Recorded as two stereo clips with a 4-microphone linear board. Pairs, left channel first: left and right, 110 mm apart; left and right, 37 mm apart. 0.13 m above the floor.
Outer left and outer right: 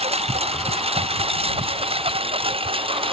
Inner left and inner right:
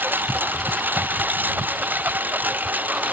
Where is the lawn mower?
65° right (ahead or behind); by 3.1 s 55° right (ahead or behind).